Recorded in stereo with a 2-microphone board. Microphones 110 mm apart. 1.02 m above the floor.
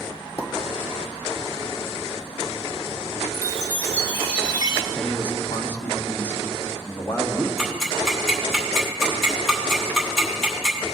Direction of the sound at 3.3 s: 40° right (ahead or behind).